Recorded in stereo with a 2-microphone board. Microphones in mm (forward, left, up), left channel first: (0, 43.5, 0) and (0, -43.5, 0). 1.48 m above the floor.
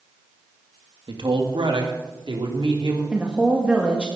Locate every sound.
1.1 s a man speaking: 65° right (ahead or behind), 2 m; by 3.0 s 75° right (ahead or behind), 3.5 m
3.1 s a woman speaking: 15° right (ahead or behind), 1.7 m